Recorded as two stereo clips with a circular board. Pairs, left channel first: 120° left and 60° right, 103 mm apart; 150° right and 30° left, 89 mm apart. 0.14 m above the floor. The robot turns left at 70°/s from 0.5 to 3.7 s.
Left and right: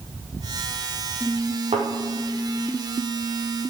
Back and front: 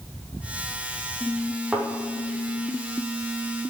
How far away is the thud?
About 7 m.